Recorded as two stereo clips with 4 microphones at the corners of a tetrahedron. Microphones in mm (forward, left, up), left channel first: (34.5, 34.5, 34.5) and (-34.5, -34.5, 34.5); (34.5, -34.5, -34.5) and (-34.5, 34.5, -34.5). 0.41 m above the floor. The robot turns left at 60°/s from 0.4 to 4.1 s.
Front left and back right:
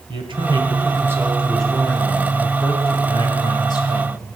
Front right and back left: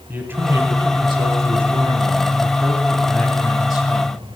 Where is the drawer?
No drawer in this recording.